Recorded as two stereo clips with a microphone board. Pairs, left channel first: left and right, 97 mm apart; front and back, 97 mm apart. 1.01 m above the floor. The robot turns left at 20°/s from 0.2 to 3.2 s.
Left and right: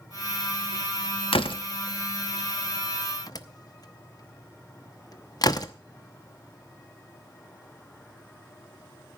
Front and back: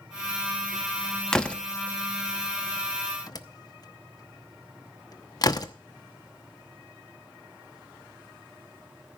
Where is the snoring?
No snoring in this recording.